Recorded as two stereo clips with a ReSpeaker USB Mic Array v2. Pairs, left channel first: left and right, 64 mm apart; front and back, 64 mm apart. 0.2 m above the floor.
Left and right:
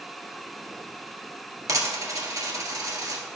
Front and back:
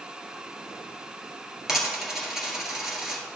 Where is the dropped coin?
100° right, 1.6 m.